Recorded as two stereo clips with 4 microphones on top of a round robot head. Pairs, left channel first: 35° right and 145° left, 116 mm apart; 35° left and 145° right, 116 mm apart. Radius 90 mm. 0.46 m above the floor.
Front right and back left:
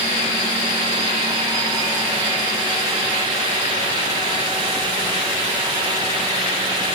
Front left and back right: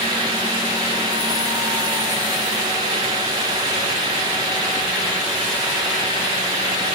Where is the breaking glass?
I don't hear breaking glass.